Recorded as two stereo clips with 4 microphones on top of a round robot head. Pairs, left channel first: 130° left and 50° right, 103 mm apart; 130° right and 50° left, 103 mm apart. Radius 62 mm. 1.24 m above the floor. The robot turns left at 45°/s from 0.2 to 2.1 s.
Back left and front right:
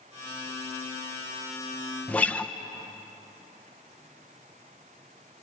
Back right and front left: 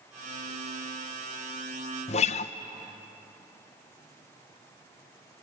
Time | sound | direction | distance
2.1 | a guitar | 150° right | 1.0 m